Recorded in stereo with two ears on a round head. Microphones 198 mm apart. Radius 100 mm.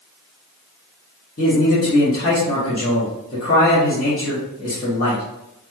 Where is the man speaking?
40° left (ahead or behind), 1.1 m.